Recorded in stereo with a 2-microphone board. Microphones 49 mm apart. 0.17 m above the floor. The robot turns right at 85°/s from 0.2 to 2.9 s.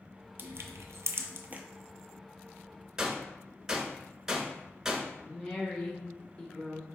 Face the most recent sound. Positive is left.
turn(degrees=25)  # may be behind; listen again after turning